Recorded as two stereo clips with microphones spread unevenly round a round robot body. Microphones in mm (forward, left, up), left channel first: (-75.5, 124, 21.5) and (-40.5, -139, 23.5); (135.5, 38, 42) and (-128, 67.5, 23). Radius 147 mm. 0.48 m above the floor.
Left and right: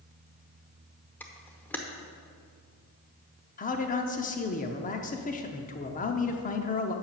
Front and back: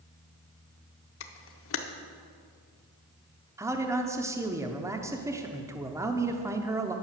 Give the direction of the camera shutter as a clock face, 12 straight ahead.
11 o'clock.